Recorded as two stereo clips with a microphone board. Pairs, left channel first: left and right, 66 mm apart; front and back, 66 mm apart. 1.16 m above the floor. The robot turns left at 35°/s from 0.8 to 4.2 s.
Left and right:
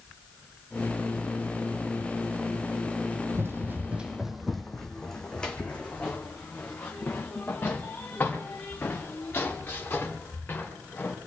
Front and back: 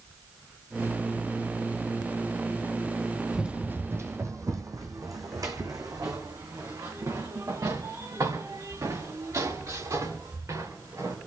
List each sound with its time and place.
3.3 s running footsteps: 105° right, 1.5 m; by 11.1 s 150° left, 8 m